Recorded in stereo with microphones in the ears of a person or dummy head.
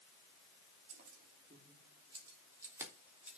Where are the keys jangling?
50° right (ahead or behind), 3 m; by 3.4 s 5° right (ahead or behind), 3.5 m.